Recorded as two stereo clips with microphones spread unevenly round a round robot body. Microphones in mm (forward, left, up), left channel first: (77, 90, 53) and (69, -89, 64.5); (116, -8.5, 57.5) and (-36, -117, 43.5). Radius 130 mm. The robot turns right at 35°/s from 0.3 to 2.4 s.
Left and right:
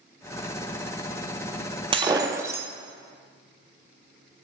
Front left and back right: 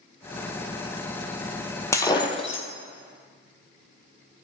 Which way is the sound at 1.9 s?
35° right.